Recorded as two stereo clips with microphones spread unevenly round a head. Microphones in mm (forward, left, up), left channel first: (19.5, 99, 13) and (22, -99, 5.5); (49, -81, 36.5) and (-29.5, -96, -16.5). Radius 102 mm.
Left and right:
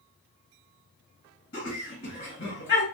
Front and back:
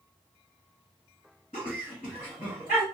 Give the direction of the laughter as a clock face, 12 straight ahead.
10 o'clock.